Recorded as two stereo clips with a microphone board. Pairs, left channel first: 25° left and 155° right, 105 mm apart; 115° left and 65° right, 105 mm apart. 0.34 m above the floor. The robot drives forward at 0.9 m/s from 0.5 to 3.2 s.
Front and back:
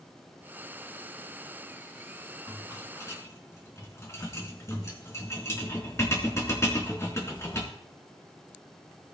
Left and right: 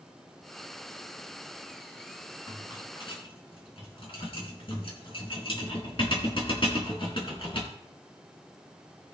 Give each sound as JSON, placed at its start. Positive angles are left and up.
{"t": 2.5, "sound": "a rattle", "azimuth_deg": 70, "distance_m": 3.5}